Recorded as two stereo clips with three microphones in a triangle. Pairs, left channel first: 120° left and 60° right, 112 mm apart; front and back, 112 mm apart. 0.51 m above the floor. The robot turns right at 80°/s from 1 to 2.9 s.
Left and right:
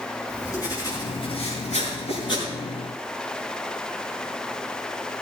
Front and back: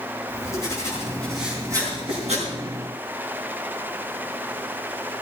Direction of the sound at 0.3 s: 60° left.